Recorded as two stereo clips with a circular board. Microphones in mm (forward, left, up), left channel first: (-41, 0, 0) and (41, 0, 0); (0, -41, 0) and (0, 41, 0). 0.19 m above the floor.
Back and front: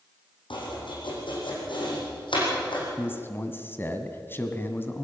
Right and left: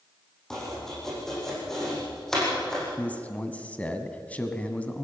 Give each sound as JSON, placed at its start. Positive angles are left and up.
{"t": 0.5, "sound": "chopping", "azimuth_deg": -175, "distance_m": 7.5}
{"t": 3.0, "sound": "a man speaking", "azimuth_deg": -150, "distance_m": 1.8}